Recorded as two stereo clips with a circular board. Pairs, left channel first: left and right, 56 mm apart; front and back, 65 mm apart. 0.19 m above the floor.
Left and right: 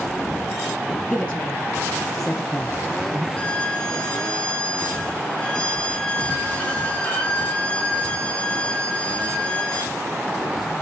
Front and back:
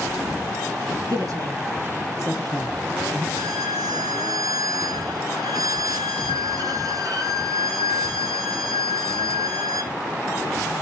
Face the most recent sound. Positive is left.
turn(degrees=160)